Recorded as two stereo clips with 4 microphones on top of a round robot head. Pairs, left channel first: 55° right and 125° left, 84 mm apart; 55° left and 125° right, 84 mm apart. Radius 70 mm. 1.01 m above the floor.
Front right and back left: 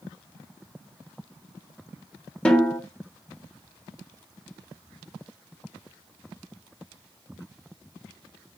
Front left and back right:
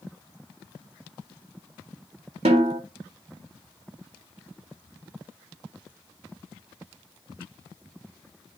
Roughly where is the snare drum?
Behind right.